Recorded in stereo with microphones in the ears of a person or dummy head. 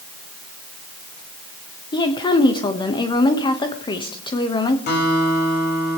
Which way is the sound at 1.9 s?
20° left (ahead or behind).